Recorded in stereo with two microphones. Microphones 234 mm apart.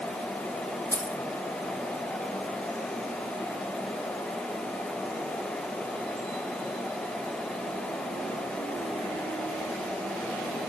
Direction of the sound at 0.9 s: 15° right (ahead or behind).